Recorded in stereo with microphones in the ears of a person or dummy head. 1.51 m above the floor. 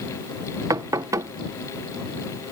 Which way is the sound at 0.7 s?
20° right (ahead or behind).